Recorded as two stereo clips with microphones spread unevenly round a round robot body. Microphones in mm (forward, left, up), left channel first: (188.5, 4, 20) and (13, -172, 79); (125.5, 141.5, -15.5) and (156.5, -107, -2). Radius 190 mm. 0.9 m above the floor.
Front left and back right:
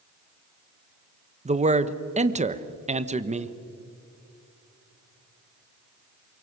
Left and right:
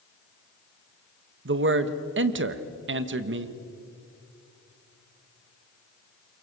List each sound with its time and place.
1.4 s a man speaking: 65° right, 1.2 m